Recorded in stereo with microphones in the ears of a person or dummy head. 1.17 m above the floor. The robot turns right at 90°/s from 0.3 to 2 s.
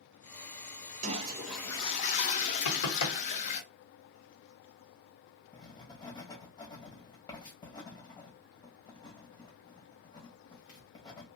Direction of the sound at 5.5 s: 20° left (ahead or behind).